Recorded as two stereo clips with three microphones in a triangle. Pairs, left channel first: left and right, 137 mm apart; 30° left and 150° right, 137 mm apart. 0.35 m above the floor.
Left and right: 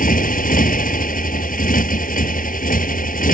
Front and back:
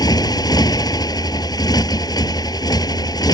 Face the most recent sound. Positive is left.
turn(degrees=90)